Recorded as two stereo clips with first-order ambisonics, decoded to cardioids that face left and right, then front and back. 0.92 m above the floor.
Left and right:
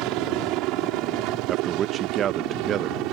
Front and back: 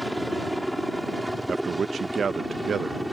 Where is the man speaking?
125° right.